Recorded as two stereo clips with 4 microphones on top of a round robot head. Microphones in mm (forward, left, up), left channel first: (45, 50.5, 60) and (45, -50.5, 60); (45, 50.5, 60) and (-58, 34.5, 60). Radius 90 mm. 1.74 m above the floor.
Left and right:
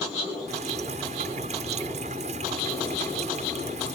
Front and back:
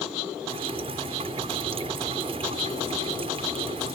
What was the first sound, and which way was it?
Dripping, 120° right.